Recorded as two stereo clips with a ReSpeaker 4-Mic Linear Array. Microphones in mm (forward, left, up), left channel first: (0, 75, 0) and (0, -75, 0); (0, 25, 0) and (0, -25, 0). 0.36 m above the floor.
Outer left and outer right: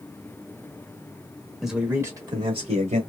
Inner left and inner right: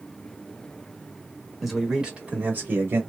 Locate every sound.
1.6 s a man speaking: centre (ahead or behind), 1.0 m; by 3.0 s 50° right (ahead or behind), 1.3 m